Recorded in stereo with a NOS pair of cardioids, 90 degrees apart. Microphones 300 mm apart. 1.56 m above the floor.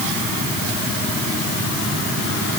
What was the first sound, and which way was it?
Only background noise.